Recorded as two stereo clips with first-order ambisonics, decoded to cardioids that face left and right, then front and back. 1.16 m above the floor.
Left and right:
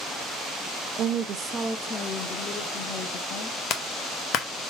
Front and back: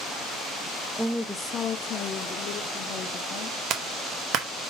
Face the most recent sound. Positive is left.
turn(degrees=135)